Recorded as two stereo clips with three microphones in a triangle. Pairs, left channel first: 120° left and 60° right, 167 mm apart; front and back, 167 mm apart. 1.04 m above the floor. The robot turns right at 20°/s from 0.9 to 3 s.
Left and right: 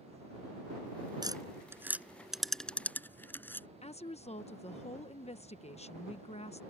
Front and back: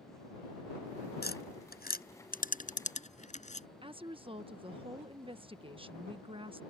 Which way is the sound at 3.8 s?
140° left.